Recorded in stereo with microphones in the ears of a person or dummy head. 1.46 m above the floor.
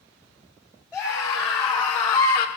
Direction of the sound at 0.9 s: 5° right (ahead or behind).